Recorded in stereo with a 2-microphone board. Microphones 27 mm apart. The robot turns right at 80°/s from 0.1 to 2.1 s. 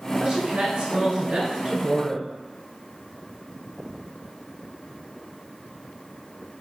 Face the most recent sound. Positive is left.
turn(degrees=5)